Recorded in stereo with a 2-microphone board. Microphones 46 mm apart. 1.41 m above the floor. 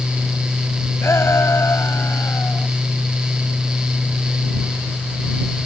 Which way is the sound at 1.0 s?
75° left (ahead or behind).